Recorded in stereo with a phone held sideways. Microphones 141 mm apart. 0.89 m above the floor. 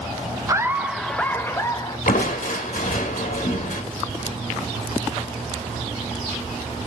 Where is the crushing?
80° left, 1.2 m.